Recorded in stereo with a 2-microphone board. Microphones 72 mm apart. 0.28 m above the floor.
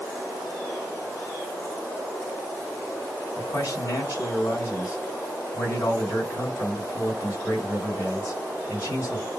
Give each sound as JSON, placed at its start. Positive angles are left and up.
{"t": 3.4, "sound": "a man speaking", "side_deg": 45, "distance_m": 2.0}